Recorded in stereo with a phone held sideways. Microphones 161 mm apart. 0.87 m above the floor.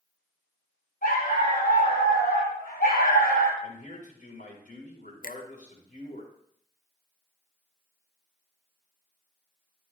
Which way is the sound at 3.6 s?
65° left (ahead or behind).